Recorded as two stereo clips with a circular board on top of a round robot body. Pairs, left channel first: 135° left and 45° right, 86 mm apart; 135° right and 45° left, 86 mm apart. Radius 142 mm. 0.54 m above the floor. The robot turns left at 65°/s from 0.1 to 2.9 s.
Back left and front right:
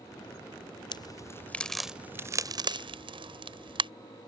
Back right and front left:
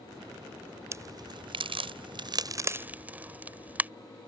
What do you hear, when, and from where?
0.9 s a crack: 100° left; by 3.9 s 30° right